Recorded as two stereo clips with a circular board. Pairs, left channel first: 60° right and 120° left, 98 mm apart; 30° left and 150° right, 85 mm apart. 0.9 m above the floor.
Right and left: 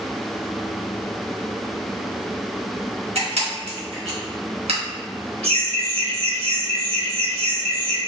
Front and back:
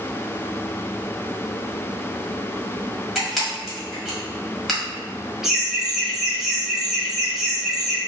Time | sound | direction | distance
3.1 | a camera shutter | 120° left | 1.4 m
5.4 | laughter | 125° left | 1.4 m